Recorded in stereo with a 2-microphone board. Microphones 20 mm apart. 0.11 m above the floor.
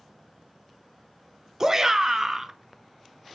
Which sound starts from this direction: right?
A shout, at 1.6 s.